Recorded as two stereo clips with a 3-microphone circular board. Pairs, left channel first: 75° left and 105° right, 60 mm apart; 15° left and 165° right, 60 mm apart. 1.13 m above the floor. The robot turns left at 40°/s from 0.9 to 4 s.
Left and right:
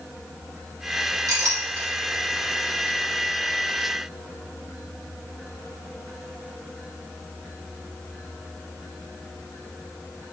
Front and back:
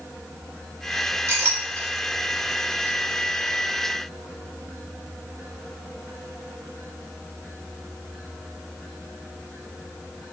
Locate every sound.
1.3 s a clink: 115° right, 2.5 m; by 1.9 s 140° right, 2.5 m